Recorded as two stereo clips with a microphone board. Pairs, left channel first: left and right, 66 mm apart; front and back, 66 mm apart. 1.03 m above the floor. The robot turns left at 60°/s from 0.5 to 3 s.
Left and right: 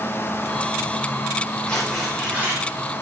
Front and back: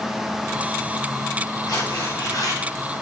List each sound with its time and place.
1.7 s tearing paper: 20° left, 4.5 m; by 2.6 s 40° right, 4.5 m